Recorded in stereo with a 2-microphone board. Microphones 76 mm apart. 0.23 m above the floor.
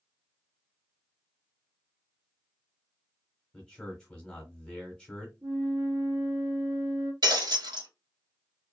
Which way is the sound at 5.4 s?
65° right (ahead or behind).